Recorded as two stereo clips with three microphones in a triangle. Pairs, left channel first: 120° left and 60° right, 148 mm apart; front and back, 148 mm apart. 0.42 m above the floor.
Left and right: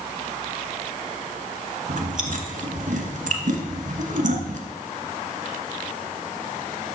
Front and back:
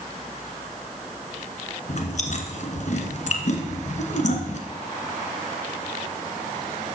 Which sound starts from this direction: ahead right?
Chewing, at 1.9 s.